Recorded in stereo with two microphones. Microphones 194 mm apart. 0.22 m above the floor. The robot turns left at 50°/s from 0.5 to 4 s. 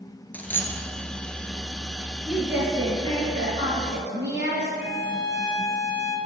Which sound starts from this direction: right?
A violin, at 4.8 s.